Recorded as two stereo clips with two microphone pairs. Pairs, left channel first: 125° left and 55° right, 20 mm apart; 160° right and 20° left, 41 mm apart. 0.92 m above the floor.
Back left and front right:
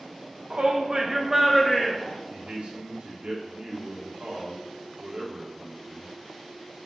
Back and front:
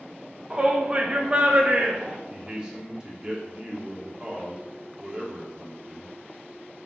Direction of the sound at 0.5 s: 45° right.